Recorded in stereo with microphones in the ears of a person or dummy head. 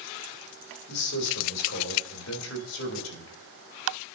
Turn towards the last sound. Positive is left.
turn(degrees=85)